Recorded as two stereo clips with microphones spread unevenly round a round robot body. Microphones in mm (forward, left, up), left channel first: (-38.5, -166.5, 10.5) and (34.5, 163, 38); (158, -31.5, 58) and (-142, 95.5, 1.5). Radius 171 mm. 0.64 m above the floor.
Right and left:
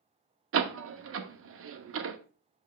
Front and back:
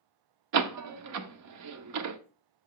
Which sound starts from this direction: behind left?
A door slam, at 0.5 s.